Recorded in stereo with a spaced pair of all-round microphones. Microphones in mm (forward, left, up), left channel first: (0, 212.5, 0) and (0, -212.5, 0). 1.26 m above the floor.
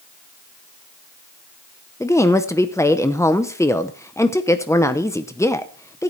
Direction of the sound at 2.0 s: 5° left (ahead or behind).